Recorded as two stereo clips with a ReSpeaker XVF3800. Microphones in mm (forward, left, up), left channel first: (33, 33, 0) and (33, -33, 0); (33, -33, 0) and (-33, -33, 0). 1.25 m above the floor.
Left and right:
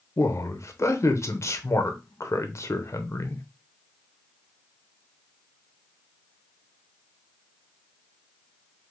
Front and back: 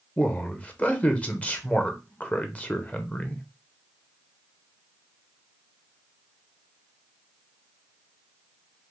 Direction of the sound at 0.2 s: 60° left.